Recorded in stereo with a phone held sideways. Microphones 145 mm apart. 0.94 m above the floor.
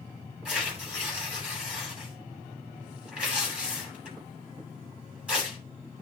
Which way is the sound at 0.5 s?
10° right (ahead or behind).